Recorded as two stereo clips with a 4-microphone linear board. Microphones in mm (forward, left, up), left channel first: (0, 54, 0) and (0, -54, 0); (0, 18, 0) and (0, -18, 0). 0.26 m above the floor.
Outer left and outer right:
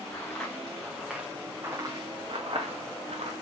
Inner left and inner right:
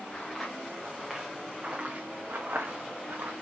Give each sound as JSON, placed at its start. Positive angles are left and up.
{"t": 0.1, "sound": "footsteps", "side_deg": 20, "distance_m": 1.4}